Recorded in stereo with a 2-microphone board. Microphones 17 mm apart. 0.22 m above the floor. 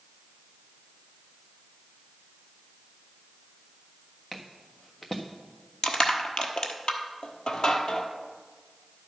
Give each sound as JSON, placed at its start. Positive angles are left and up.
{"t": 4.3, "sound": "footsteps", "side_deg": 25, "distance_m": 1.4}
{"t": 5.8, "sound": "crushing", "side_deg": 65, "distance_m": 1.1}